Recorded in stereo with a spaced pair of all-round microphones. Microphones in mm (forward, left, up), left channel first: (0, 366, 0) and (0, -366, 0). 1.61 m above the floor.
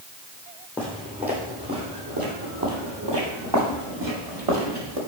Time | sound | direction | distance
0.8 | footsteps | centre (ahead or behind) | 3 m